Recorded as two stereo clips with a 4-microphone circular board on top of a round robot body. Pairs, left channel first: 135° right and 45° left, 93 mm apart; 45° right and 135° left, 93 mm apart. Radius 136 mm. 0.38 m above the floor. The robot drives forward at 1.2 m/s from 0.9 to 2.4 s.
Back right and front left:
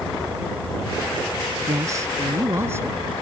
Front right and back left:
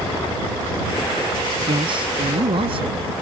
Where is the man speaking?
100° left; by 3.0 s 110° left.